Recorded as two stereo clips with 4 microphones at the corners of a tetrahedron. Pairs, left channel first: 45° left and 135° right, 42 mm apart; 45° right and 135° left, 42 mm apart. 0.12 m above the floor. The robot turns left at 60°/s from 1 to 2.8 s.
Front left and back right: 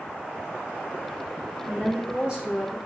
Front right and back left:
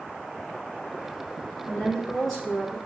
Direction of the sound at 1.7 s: 85° right.